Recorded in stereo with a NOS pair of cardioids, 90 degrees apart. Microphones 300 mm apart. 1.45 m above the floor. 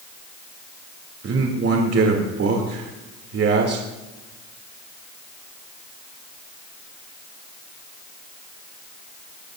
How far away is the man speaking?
About 2.5 m.